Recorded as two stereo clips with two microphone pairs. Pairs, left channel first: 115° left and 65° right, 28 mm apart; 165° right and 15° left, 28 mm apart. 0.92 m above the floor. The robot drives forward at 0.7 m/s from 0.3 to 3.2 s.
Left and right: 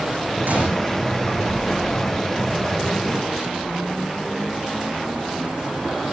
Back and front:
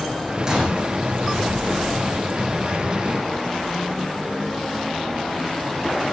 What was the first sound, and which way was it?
A gunshot, 50° right.